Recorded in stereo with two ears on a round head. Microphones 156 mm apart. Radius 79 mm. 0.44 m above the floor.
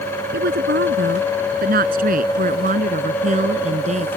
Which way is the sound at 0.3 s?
65° right (ahead or behind).